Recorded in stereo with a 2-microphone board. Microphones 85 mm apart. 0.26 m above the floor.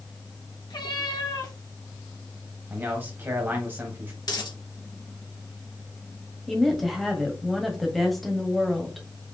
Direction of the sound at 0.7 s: 60° left (ahead or behind).